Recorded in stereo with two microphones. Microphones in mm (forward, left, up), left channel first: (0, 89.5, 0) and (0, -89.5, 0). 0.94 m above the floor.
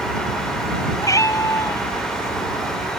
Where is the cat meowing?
20° left (ahead or behind).